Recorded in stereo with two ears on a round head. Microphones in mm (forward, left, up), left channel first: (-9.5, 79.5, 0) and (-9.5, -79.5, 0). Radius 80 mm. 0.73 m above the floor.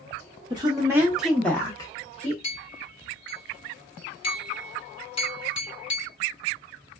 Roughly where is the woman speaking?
Right.